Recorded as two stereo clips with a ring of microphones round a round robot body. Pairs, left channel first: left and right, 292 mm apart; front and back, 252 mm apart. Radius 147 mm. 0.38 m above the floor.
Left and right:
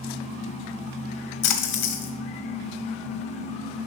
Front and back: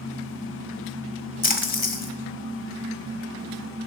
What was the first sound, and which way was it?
A splash, 55° left.